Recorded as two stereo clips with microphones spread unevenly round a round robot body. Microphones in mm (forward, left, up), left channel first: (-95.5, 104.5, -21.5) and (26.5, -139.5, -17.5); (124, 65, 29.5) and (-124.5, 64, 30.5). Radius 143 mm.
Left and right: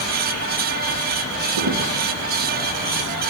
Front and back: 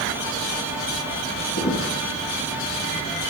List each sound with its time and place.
1.6 s footsteps: 55° right, 4.5 m